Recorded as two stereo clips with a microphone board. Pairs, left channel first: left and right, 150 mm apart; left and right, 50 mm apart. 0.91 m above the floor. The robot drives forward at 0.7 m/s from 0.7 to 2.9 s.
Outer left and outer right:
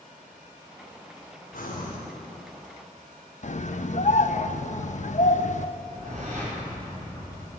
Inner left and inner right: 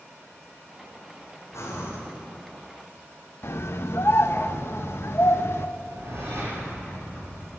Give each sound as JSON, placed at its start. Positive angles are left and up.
{"t": 1.5, "sound": "breathing", "side_deg": 80, "distance_m": 3.5}
{"t": 3.4, "sound": "a scream", "side_deg": 55, "distance_m": 0.7}
{"t": 5.8, "sound": "a whoosh", "side_deg": -55, "distance_m": 6.0}